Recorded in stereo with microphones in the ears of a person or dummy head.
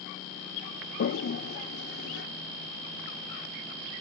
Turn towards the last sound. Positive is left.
turn(degrees=65)  # may be behind; listen again after turning